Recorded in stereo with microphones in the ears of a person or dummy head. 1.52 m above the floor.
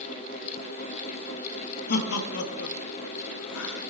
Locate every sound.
1.9 s laughter: 55° left (ahead or behind), 1.1 m; by 3.8 s 65° left (ahead or behind), 1.0 m